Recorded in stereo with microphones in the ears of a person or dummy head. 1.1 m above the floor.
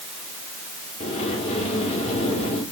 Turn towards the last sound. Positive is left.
turn(degrees=30)  # may be behind; listen again after turning